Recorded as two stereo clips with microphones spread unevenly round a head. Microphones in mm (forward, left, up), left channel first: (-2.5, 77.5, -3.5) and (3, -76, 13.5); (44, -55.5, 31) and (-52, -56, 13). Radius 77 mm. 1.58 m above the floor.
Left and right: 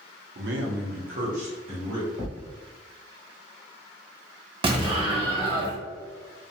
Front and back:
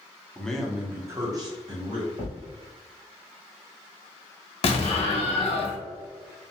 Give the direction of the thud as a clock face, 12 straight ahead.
6 o'clock.